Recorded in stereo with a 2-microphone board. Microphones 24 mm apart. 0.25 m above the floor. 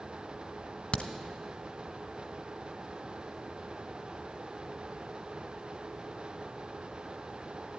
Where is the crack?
60° left (ahead or behind), 1.1 m.